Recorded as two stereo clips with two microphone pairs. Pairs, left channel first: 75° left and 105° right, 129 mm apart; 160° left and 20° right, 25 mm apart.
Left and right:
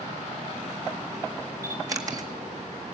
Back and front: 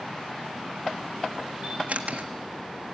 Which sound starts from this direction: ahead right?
A camera shutter, at 1.6 s.